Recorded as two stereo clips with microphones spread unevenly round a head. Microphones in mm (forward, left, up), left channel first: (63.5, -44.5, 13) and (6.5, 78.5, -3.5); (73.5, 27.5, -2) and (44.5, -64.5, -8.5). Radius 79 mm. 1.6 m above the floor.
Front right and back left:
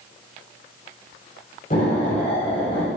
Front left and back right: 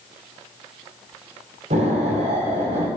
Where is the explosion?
115° right, 5.5 m.